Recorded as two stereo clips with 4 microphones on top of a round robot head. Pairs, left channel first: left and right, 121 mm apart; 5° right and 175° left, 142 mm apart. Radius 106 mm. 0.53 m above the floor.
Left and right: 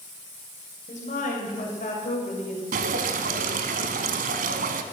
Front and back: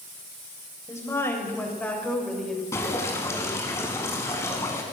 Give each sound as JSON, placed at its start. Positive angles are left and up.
{"t": 0.9, "sound": "a woman speaking", "azimuth_deg": 65, "distance_m": 2.5}
{"t": 2.7, "sound": "dripping", "azimuth_deg": -80, "distance_m": 0.9}